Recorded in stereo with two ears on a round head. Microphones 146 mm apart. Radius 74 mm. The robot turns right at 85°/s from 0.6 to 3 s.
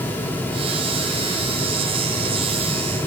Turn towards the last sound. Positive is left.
No sound to turn to.